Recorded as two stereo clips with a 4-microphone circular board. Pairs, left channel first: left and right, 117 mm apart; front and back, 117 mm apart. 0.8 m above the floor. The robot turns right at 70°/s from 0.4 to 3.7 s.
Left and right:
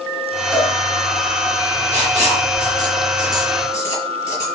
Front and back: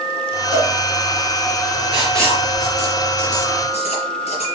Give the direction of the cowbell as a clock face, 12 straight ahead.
7 o'clock.